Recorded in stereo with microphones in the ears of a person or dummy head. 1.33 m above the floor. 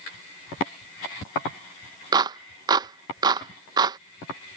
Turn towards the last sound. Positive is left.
turn(degrees=-25)  # may be behind; listen again after turning